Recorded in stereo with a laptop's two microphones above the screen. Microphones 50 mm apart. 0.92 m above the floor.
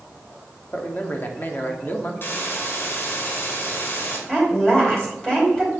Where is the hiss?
45° left (ahead or behind), 2 m.